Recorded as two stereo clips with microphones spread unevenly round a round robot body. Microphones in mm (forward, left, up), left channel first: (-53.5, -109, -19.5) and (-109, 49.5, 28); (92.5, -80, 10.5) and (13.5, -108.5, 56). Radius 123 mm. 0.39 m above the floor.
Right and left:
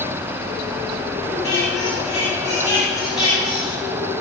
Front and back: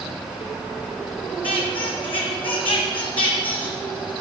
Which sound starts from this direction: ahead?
A squeak, at 1.4 s.